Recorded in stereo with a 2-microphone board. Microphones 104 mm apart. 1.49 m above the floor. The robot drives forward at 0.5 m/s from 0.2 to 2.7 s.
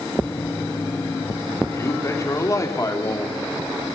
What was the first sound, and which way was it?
A man speaking, 30° left (ahead or behind).